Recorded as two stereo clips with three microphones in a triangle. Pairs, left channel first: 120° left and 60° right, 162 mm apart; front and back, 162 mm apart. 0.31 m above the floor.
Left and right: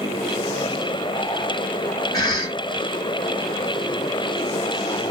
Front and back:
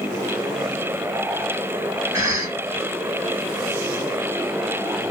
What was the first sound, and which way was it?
A cough, 145° left.